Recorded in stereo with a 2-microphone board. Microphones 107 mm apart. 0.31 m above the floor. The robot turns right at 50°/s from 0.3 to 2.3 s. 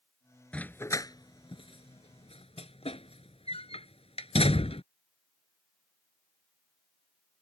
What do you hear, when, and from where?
0.5 s a dog barking: 10° left (ahead or behind); by 4.8 s 80° left